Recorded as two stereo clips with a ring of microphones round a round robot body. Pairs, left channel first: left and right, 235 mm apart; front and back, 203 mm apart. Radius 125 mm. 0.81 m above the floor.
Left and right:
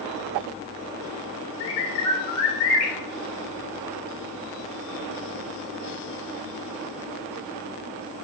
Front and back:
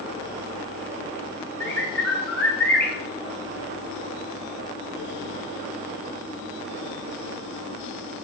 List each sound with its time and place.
1.6 s a bird: 80° left, 0.7 m